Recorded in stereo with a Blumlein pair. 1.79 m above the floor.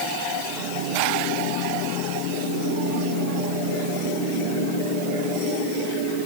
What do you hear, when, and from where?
Only background noise.